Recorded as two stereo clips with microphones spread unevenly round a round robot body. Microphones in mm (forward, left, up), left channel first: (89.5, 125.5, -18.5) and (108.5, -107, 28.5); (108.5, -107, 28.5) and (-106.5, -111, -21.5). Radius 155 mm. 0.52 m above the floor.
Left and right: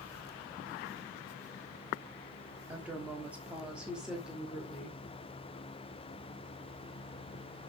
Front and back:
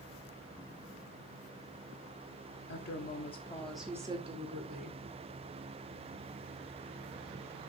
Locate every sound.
2.7 s a woman speaking: 10° left, 1.5 m; by 5.0 s 175° left, 2 m